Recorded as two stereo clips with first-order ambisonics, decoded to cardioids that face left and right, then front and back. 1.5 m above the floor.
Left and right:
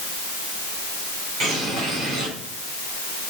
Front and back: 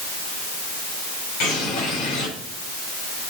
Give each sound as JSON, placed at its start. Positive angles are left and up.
{"t": 1.4, "sound": "a bird", "azimuth_deg": -40, "distance_m": 6.0}